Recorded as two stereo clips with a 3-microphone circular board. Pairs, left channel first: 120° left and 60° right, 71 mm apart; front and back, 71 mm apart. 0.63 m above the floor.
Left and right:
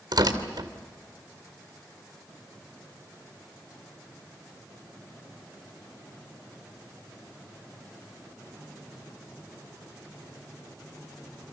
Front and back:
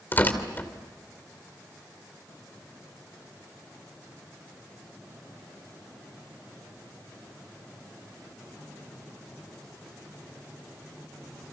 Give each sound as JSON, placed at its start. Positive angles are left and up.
{"t": 0.1, "sound": "tearing paper", "azimuth_deg": -60, "distance_m": 2.5}